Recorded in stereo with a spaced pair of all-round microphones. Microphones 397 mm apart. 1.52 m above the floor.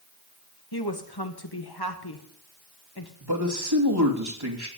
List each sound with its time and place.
0.7 s a woman speaking: 70° left (ahead or behind), 1.8 m
3.2 s a man speaking: 75° right (ahead or behind), 2.5 m